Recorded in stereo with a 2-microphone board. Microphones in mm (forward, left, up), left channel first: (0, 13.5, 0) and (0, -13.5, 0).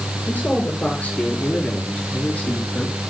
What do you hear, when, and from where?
0.3 s a man speaking: 70° left (ahead or behind), 7 m